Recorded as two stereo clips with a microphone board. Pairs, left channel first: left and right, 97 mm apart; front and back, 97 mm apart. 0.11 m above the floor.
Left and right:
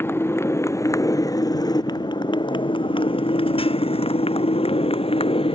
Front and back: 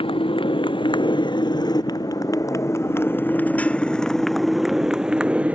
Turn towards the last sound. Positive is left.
turn(degrees=105)